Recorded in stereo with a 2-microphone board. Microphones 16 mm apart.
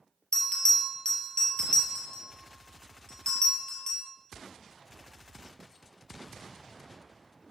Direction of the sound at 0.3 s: 50° left (ahead or behind).